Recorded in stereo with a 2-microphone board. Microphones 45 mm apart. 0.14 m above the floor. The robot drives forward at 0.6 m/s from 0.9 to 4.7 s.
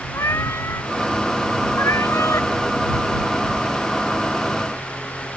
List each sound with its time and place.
0.1 s a cat meowing: 75° left (ahead or behind); by 2.5 s 85° left